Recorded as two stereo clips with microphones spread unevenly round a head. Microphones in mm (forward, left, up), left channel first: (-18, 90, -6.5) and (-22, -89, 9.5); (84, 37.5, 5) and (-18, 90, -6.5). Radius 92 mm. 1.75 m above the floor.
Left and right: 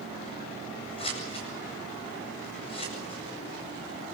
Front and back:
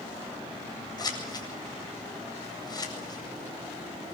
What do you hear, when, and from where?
1.0 s scissors: 25° left, 8.5 m